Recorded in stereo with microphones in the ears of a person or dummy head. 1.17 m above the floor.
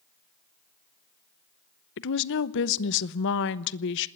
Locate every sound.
2.0 s a woman speaking: 65° left (ahead or behind), 0.9 m